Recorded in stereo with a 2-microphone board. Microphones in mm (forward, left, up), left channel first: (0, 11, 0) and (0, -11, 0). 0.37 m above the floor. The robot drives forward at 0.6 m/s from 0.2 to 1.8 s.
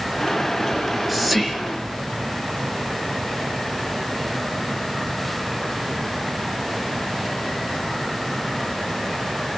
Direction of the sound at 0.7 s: 10° right (ahead or behind).